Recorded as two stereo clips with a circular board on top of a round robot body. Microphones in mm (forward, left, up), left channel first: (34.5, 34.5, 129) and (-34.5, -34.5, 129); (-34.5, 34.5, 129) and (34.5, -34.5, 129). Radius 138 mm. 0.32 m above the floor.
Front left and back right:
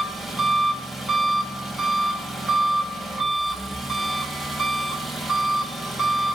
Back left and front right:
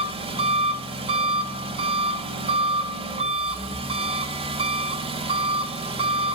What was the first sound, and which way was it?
An engine running, 45° right.